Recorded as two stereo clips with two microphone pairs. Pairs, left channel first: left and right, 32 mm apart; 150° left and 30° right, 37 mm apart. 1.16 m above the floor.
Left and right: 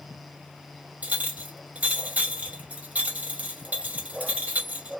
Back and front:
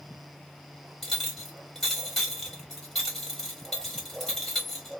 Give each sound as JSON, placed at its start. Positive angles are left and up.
{"t": 1.0, "sound": "a clink", "azimuth_deg": -135, "distance_m": 1.6}